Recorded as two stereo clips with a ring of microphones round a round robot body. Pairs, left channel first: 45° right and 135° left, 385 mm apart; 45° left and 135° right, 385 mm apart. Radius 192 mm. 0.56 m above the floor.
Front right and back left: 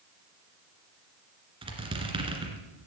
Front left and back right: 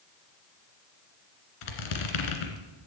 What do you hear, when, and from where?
1.6 s a squeak: 55° left, 2.5 m